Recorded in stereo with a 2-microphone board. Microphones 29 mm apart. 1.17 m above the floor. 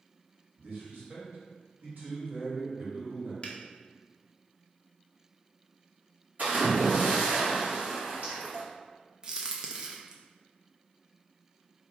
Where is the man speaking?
80° right, 2.0 m.